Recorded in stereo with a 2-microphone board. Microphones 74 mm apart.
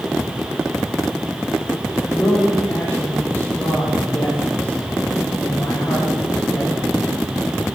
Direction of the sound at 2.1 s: 35° left (ahead or behind).